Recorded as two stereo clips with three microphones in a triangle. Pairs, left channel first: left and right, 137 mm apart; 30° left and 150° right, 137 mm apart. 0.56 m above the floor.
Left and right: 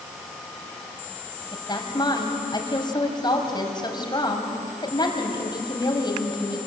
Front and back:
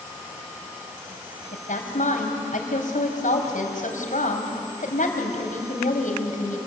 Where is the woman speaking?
35° left, 4 m.